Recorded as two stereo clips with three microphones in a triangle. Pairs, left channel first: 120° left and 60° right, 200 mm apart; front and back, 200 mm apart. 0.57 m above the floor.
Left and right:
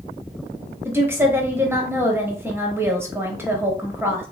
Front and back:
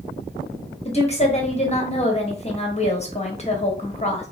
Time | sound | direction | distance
0.8 | a woman speaking | 10° left | 0.9 m